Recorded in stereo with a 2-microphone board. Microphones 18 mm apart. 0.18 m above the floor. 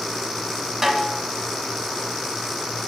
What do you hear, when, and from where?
0.8 s a snare drum: 20° right (ahead or behind), 1.2 m